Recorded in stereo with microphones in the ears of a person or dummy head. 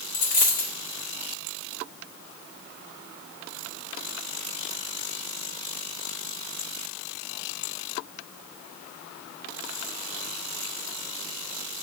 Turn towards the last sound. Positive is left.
turn(degrees=30)  # may be behind; listen again after turning